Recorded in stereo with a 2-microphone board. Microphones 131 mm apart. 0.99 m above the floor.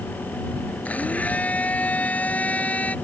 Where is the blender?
10° left (ahead or behind).